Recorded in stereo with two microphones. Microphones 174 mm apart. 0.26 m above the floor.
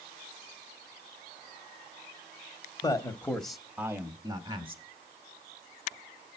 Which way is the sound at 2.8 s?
20° left (ahead or behind).